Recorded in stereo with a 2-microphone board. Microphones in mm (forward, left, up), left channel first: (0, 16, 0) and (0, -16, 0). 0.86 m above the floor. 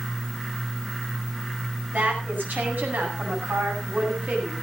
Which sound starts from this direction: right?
A woman speaking, at 1.9 s.